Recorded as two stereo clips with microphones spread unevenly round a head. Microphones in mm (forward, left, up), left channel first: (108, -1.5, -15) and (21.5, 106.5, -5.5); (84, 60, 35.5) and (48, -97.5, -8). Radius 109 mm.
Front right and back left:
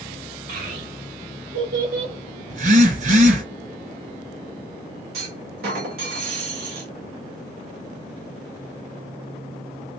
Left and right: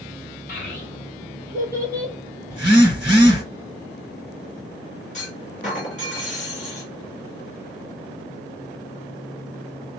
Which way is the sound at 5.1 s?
135° left.